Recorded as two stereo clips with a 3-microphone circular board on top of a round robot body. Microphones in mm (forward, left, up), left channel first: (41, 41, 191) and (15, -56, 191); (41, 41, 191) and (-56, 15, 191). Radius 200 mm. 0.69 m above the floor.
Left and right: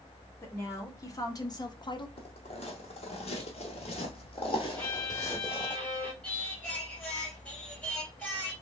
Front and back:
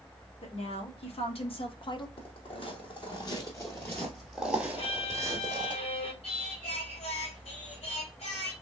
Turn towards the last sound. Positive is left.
turn(degrees=-5)